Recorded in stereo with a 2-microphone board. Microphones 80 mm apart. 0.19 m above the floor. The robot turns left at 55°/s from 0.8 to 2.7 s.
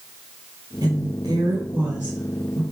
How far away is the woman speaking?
About 2.5 m.